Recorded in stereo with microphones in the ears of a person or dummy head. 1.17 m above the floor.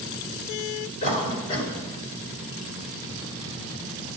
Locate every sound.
1.0 s a cough: 30° left (ahead or behind), 5.5 m